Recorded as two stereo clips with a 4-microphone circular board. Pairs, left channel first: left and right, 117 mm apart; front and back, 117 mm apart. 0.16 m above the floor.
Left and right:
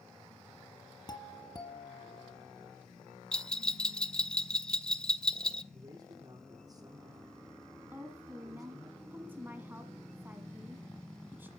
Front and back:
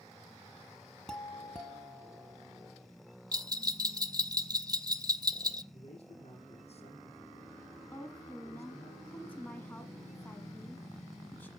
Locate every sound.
1.1 s a doorbell: 80° left, 1.7 m
3.3 s a bell: 165° left, 0.7 m
5.7 s a man speaking: 40° right, 5.5 m
7.9 s a woman speaking: 45° right, 1.5 m